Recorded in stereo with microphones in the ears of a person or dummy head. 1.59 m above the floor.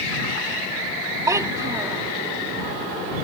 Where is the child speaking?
20° right (ahead or behind).